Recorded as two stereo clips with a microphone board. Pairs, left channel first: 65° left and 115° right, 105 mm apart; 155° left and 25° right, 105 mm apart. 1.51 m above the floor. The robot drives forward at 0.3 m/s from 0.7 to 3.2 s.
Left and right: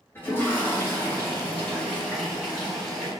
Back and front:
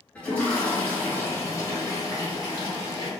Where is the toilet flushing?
100° left, 0.9 m; by 3.1 s 155° left, 1.2 m.